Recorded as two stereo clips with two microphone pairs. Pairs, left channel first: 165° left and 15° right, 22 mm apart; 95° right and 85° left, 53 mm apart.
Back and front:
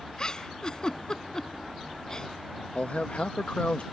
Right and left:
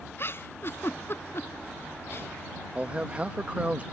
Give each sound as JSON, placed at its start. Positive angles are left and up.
{"t": 0.2, "sound": "a giggle", "azimuth_deg": -135}
{"t": 2.8, "sound": "a man speaking", "azimuth_deg": 140}